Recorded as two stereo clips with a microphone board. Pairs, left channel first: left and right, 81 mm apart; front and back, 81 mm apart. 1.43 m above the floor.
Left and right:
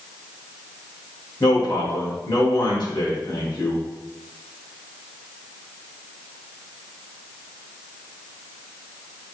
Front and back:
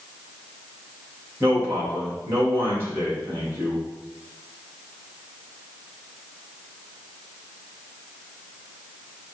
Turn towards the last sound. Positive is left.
turn(degrees=120)